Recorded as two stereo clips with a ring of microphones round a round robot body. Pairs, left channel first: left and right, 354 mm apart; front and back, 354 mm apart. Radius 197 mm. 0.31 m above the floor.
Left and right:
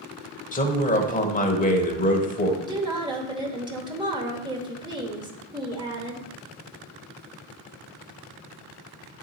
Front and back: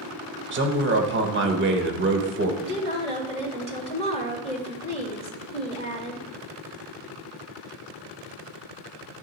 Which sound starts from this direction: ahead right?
A woman speaking, at 2.6 s.